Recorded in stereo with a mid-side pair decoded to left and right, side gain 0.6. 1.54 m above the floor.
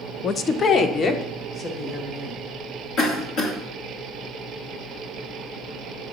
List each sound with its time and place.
0.2 s a woman speaking: 35° left, 0.6 m; by 2.4 s 40° left, 2.5 m
3.0 s a cough: 65° left, 2 m